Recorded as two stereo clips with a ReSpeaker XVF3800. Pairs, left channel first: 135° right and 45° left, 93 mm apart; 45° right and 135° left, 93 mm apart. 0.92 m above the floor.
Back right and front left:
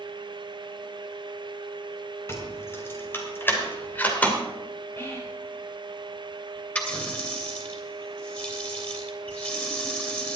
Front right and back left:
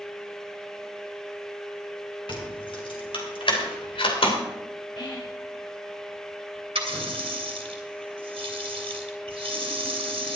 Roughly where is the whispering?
Right.